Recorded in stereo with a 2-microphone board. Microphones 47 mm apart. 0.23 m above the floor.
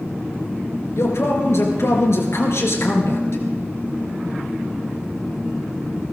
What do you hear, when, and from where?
1.0 s a man speaking: 70° left (ahead or behind), 4 m